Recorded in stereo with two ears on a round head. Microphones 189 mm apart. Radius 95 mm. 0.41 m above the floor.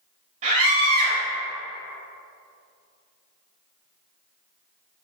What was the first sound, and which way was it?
A scream, 35° right (ahead or behind).